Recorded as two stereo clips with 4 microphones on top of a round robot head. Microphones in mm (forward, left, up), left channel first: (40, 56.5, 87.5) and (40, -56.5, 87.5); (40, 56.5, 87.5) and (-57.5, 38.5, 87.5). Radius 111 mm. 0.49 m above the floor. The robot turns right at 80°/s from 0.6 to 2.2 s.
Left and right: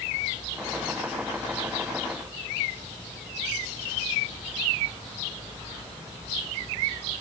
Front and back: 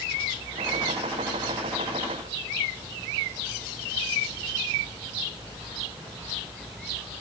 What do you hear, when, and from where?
Only background noise.